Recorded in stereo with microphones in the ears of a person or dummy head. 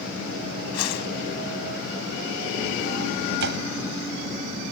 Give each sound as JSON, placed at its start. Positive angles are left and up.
{"t": 0.7, "sound": "a whoosh", "side_deg": 80}
{"t": 3.4, "sound": "a door slam", "side_deg": -65}